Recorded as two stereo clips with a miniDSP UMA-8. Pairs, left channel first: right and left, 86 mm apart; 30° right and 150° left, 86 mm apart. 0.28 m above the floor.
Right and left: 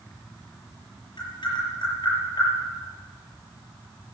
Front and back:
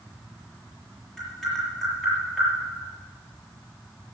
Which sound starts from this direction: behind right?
Tapping, at 1.2 s.